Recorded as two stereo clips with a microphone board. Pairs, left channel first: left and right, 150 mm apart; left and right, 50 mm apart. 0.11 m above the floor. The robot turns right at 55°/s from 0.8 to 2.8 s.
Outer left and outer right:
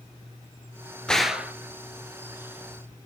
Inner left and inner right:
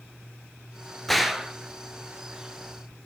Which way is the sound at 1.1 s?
5° left (ahead or behind).